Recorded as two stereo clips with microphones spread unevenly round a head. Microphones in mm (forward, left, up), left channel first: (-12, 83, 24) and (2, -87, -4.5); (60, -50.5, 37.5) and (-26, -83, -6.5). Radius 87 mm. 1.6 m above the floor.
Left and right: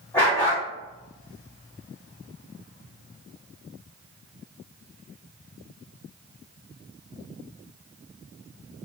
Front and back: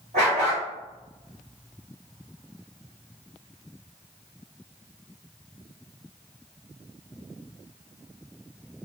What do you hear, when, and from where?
0.1 s a dog barking: 165° left, 1.9 m